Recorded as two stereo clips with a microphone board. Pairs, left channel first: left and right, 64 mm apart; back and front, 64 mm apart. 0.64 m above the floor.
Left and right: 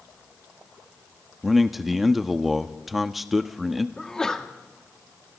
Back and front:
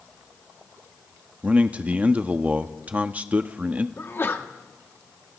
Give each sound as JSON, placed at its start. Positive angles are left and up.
{"t": 1.4, "sound": "a man speaking", "azimuth_deg": -5, "distance_m": 0.9}
{"t": 4.0, "sound": "a sneeze", "azimuth_deg": 165, "distance_m": 1.5}